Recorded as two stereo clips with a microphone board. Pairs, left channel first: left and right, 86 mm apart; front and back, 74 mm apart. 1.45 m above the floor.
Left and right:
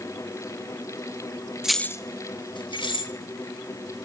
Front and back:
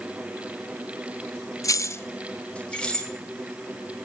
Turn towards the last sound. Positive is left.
turn(degrees=80)